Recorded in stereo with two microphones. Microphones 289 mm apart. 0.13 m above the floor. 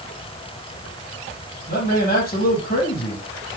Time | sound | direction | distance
1.7 | a man speaking | 30° left (ahead or behind) | 4.5 m